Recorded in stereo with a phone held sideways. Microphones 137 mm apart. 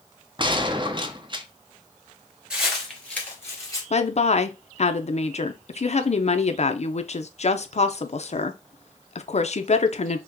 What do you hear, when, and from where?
0.4 s a gunshot: 35° right (ahead or behind), 0.6 m
2.5 s footsteps: 5° right (ahead or behind), 1.8 m; by 3.8 s 25° left (ahead or behind), 2 m
3.9 s a woman speaking: 50° left (ahead or behind), 0.6 m